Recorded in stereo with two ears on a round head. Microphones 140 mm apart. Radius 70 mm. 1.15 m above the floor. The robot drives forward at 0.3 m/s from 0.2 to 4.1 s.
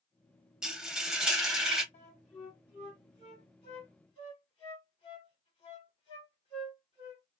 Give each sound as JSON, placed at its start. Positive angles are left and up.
{"t": 0.6, "sound": "frying", "side_deg": -5, "distance_m": 0.8}
{"t": 1.9, "sound": "a flute", "side_deg": 45, "distance_m": 1.4}